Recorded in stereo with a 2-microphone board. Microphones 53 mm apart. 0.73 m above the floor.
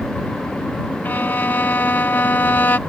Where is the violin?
40° left (ahead or behind).